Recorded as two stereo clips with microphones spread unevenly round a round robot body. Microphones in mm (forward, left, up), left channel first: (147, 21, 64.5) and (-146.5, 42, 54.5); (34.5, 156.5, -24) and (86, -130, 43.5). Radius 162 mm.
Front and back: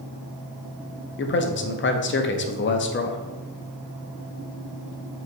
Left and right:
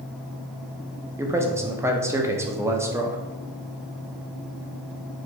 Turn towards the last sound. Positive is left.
turn(degrees=15)